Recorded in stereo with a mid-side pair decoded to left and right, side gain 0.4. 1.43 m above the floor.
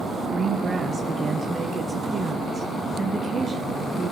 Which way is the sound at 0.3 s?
40° right.